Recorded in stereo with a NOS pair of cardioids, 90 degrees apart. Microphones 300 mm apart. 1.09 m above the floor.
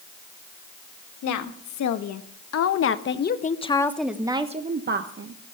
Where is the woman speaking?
70° left, 2.0 m; by 5.4 s 45° right, 1.2 m.